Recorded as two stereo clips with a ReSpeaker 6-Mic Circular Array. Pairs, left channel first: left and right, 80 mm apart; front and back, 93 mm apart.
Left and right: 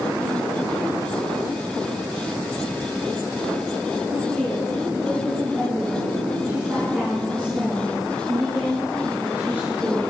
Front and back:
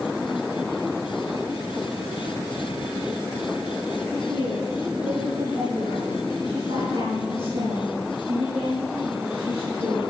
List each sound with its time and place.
4.3 s a woman speaking: 170° right, 4.5 m; by 10.1 s 155° right, 7.5 m